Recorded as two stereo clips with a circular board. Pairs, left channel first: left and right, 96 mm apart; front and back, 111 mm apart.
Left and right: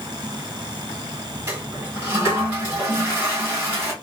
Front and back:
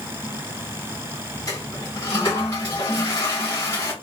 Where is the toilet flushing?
35° right, 1.9 m.